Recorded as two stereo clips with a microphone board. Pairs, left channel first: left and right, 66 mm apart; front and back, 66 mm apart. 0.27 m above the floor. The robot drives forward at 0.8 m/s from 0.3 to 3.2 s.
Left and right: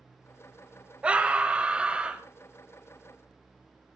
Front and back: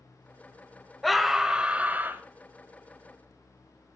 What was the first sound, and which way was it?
A scream, 85° right.